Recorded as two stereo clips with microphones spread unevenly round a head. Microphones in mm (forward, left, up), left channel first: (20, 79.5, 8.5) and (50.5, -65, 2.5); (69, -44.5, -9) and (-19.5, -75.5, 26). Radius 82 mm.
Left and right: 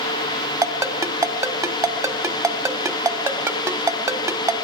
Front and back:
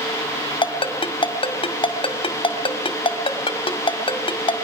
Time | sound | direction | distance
0.6 | a ringtone | 10° right | 1.7 m